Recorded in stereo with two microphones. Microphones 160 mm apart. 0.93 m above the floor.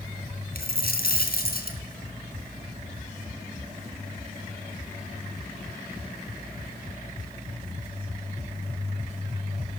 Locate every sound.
0.6 s a dropped coin: 70° left (ahead or behind), 3.5 m